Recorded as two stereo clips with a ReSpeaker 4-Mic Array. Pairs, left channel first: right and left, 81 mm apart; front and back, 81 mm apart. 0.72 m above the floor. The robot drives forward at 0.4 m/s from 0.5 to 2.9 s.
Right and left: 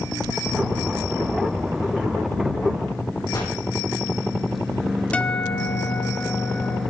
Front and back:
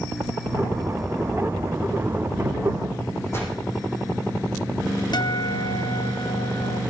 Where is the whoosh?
55° right, 5.5 m.